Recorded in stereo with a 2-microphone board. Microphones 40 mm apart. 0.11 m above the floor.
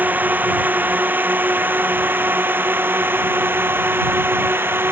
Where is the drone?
50° right (ahead or behind); by 4.9 s 70° right (ahead or behind).